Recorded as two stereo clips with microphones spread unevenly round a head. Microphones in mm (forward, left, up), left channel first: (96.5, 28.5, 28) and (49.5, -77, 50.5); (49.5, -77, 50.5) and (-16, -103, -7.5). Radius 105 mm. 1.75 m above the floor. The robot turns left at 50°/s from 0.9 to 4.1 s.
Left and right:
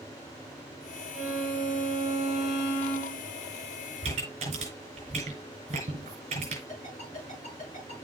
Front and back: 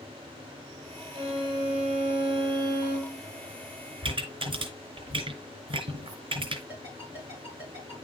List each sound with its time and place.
1.1 s a violin: 130° right, 3.5 m; by 3.2 s 125° left, 3.5 m
4.0 s a pop: 135° right, 3 m
6.7 s a ringtone: 120° left, 8 m